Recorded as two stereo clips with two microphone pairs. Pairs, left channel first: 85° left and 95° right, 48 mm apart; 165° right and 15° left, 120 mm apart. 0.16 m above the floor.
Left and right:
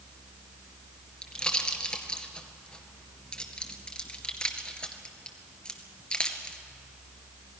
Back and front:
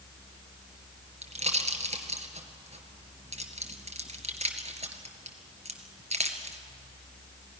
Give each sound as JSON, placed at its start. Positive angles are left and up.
{"t": 1.2, "sound": "a pop", "azimuth_deg": 15, "distance_m": 1.8}